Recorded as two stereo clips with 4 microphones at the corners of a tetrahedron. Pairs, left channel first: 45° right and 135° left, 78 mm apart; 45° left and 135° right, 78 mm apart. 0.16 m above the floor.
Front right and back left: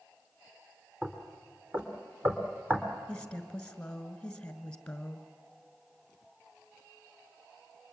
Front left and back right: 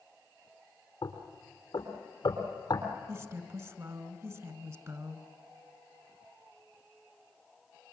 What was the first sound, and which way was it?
Knocking, 75° left.